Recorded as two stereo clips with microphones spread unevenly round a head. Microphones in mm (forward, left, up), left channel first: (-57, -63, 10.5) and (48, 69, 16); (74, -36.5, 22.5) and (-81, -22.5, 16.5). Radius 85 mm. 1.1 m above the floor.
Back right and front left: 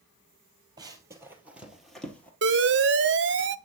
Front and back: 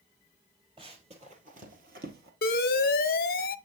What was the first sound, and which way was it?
Running footsteps, 115° left.